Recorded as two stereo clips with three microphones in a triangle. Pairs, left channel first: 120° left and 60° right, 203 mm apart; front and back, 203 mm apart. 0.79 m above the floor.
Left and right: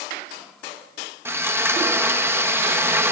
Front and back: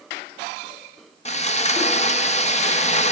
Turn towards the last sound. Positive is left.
turn(degrees=10)